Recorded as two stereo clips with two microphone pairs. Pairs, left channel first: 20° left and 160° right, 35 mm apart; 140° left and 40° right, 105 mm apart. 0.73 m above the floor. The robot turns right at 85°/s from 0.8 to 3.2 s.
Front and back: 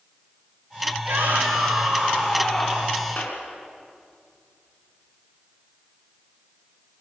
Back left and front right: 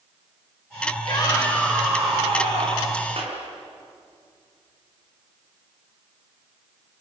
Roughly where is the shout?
Behind.